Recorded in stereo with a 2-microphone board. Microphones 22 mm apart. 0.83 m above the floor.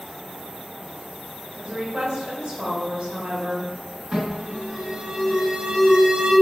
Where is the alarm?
50° right (ahead or behind), 1.7 m.